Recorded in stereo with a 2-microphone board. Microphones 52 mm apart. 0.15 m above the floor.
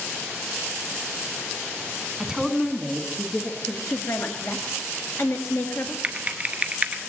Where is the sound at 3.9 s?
55° left (ahead or behind), 1.8 m.